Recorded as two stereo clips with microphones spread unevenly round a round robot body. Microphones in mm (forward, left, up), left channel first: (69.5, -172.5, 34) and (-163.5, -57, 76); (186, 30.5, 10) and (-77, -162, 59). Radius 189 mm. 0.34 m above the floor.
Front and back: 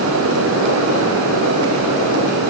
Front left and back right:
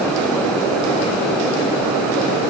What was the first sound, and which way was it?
Only background noise.